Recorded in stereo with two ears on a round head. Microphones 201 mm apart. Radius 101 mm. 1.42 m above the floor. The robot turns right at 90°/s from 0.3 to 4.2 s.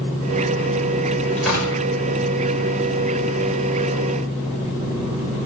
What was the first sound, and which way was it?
Tearing paper, 10° left (ahead or behind).